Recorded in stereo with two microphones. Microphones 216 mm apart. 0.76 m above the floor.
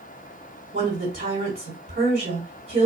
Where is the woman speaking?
50° right (ahead or behind), 1.6 m.